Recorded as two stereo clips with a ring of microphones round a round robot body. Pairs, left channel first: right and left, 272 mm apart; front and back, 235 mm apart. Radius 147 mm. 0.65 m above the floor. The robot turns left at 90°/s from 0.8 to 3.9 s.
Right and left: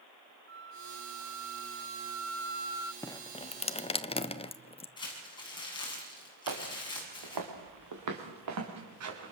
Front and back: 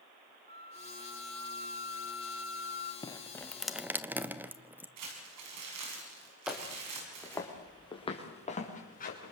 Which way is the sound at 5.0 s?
165° right.